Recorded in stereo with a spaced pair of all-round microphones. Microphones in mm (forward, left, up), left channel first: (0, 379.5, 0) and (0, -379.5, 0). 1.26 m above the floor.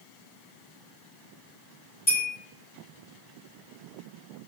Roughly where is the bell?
Left.